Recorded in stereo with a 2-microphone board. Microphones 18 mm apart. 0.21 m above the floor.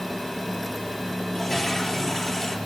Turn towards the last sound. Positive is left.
turn(degrees=30)  # may be behind; listen again after turning